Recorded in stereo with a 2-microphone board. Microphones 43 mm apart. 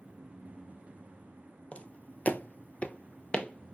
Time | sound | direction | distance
1.7 | footsteps | 35° left (ahead or behind) | 0.7 m